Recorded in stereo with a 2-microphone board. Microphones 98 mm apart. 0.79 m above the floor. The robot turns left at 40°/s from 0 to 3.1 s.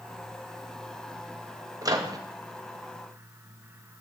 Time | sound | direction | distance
1.8 | a microwave | 35° right (ahead or behind) | 0.7 m